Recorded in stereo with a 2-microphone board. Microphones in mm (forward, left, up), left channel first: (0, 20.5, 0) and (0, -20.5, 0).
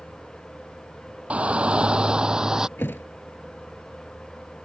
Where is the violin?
No violin in this recording.